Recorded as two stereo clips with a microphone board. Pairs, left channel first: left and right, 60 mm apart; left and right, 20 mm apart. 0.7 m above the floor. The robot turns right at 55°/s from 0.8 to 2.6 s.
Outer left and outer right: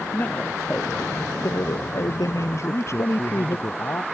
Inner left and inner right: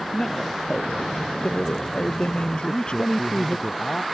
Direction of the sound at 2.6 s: 50° left (ahead or behind).